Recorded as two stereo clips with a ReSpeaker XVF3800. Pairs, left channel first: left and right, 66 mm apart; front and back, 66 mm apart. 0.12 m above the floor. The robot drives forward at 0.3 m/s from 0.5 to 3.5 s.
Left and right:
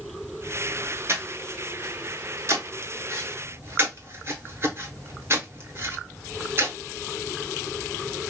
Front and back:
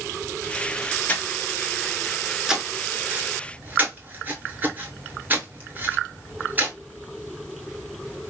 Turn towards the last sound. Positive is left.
turn(degrees=-125)